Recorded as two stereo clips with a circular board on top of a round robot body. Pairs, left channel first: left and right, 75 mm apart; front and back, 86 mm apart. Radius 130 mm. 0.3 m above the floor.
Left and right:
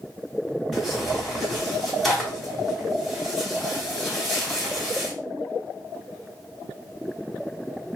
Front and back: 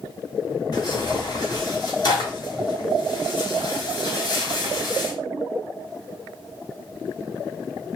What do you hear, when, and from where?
0.7 s tearing paper: 5° left, 2.5 m